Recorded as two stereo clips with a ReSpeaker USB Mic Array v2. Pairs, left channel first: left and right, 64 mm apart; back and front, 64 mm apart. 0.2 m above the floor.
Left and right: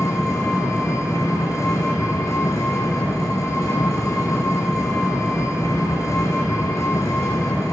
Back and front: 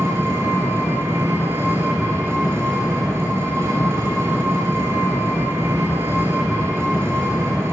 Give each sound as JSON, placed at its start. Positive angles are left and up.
{"t": 0.0, "sound": "an engine running", "azimuth_deg": 50, "distance_m": 2.0}